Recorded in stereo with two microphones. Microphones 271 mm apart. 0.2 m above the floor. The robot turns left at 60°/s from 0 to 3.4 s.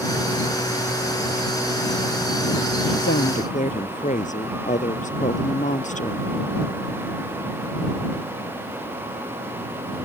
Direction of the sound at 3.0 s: 50° left (ahead or behind).